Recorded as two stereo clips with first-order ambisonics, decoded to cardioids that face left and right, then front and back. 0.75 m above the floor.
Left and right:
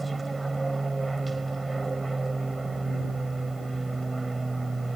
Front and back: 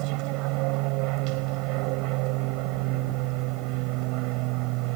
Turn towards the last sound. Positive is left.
turn(degrees=-170)